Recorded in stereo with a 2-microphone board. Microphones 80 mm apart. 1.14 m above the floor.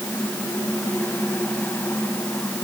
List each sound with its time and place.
Only background noise.